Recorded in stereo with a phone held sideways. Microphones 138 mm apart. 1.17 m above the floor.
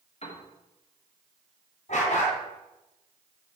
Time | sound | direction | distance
0.2 | a piano | 50° left (ahead or behind) | 1.3 m
1.9 | a dog barking | 60° left (ahead or behind) | 2.5 m